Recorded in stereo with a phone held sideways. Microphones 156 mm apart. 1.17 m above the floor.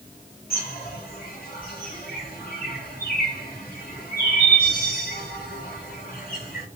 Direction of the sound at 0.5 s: 70° left (ahead or behind).